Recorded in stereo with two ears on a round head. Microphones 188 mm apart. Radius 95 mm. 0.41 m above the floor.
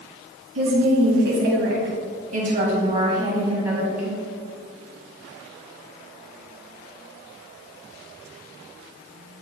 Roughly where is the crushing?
No crushing in this recording.